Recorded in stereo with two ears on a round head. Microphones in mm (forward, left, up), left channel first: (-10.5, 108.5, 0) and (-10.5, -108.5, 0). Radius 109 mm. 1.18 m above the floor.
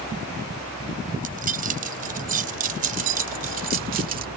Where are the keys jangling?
35° right (ahead or behind).